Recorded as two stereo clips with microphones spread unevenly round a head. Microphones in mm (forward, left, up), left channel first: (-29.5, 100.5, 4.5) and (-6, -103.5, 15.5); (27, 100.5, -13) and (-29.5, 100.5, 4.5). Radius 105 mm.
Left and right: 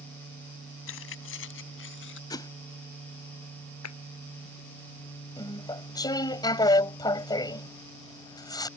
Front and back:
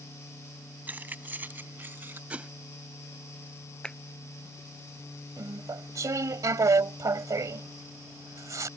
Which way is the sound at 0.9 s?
125° left.